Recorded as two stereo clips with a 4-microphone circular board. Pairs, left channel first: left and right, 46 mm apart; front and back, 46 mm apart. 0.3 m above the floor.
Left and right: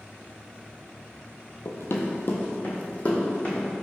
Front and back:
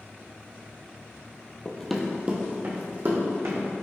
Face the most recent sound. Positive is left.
turn(degrees=150)